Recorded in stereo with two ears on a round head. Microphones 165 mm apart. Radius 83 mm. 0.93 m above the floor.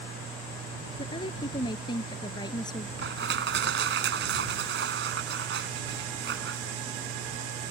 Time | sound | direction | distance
1.0 | a woman speaking | 30° left (ahead or behind) | ?
3.0 | crushing | 70° right (ahead or behind) | ?